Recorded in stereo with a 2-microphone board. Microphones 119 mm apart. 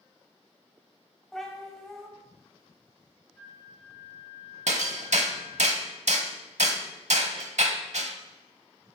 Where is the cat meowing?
5° left (ahead or behind), 1.3 m.